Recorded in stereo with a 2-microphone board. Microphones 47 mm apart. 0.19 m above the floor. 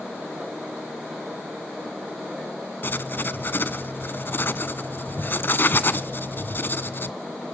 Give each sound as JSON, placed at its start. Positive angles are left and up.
{"t": 2.8, "sound": "writing", "side_deg": 45, "distance_m": 0.7}